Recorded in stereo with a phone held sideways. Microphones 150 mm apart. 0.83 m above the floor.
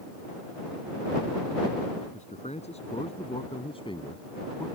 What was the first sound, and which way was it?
A man speaking, 50° left (ahead or behind).